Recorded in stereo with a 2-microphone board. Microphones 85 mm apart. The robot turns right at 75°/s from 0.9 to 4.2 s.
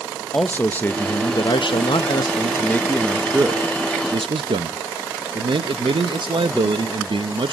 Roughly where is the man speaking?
Ahead.